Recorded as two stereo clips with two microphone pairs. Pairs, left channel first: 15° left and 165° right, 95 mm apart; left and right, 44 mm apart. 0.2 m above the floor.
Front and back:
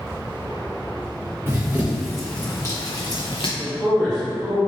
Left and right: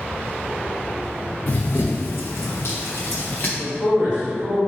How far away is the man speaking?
About 1.7 m.